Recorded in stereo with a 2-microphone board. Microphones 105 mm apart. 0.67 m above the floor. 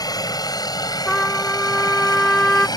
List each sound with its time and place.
0.0 s a helicopter: 35° left (ahead or behind)
1.1 s a trumpet: 10° left (ahead or behind)